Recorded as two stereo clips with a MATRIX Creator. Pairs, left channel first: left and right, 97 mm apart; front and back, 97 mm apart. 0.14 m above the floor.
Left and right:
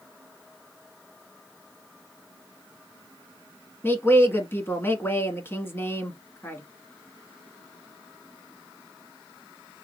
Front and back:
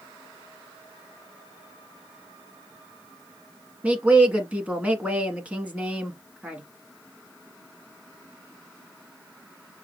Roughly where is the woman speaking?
Behind left.